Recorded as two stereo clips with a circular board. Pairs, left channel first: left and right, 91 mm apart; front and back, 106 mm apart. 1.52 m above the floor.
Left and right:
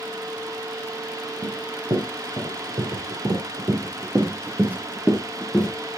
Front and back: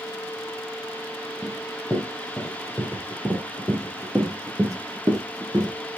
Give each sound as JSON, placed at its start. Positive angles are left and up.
{"t": 1.4, "sound": "running footsteps", "azimuth_deg": -95, "distance_m": 3.5}